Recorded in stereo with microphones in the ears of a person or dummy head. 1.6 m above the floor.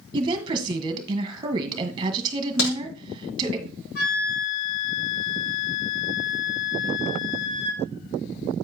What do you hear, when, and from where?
0.1 s a woman speaking: 25° right (ahead or behind), 1.5 m
2.6 s a crack: 85° left, 6 m
4.0 s a flute: 55° left (ahead or behind), 3 m